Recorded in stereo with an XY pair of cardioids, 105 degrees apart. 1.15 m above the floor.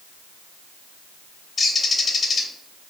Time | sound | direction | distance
1.6 | a bird | 40° left | 0.6 m